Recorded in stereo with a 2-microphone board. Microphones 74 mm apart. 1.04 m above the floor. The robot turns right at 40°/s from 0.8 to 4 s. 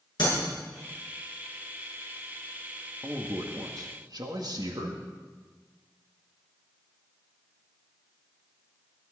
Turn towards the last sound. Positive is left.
turn(degrees=-110)